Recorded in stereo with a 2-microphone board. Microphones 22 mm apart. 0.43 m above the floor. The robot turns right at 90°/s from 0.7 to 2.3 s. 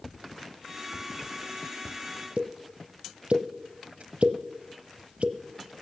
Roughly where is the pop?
Right.